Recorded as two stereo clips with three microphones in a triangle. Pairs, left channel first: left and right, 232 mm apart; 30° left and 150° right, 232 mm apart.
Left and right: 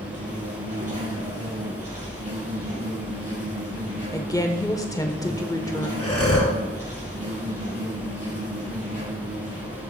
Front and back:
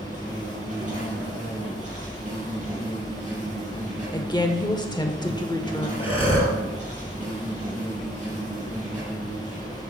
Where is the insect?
90° right, 5.5 m.